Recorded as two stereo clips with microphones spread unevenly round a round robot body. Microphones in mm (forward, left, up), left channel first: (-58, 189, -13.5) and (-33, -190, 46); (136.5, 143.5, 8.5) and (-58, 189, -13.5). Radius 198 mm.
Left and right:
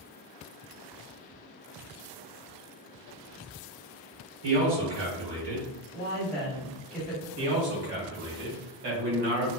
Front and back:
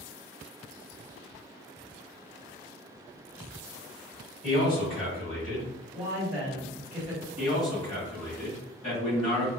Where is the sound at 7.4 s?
80° right, 1.5 m.